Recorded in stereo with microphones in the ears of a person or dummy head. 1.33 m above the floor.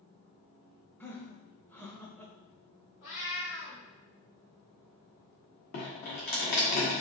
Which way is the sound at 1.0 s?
10° left (ahead or behind).